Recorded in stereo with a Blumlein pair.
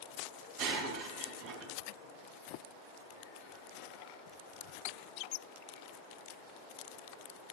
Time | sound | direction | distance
0.6 | breaking glass | 40° right | 4 m